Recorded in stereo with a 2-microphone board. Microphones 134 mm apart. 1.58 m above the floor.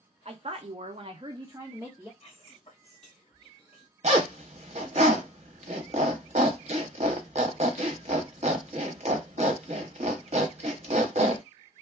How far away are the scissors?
I don't hear scissors.